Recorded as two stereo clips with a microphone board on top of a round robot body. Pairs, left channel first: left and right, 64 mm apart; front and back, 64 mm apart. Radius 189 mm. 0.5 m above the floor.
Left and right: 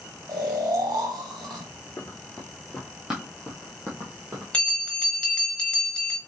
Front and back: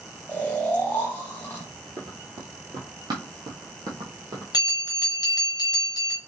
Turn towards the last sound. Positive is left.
turn(degrees=15)